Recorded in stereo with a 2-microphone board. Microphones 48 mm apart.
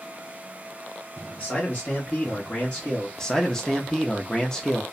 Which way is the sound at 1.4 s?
25° left (ahead or behind).